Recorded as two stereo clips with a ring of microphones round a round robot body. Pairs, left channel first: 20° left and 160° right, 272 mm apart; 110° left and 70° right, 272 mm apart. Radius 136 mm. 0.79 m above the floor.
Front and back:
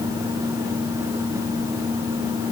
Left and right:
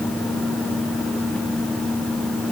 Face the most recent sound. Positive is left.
No sound to turn to.